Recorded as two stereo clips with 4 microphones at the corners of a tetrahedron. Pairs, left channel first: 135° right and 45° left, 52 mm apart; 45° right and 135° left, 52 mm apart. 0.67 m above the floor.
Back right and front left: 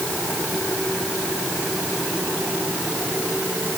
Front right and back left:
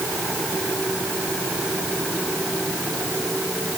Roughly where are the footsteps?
No footsteps in this recording.